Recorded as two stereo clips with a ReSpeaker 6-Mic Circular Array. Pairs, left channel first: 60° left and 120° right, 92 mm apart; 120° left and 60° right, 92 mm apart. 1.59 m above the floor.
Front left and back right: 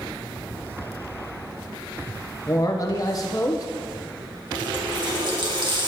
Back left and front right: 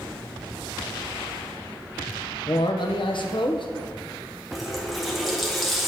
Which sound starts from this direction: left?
A man speaking, at 2.5 s.